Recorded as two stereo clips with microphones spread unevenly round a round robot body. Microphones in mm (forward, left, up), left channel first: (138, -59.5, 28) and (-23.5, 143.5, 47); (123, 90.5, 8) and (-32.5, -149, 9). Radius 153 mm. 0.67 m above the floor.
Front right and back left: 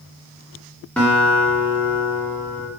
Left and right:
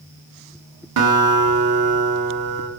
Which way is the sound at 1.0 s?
135° right.